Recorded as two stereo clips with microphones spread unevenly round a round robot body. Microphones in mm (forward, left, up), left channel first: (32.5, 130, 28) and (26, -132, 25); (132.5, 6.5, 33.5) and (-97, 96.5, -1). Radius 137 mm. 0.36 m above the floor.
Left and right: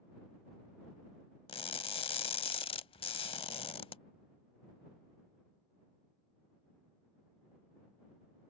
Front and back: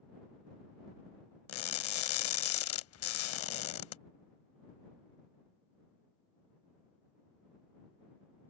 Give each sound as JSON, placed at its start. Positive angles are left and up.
{"t": 1.5, "sound": "crushing", "azimuth_deg": 15}